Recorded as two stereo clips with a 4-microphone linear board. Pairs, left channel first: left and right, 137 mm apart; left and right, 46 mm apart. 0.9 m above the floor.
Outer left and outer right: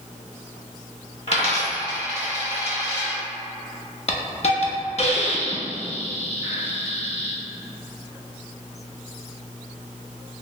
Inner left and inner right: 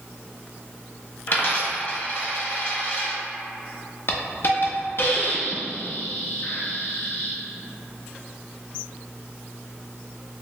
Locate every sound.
1.3 s a dropped coin: 50° left (ahead or behind), 1.2 m
4.1 s a hiss: 50° left (ahead or behind), 0.5 m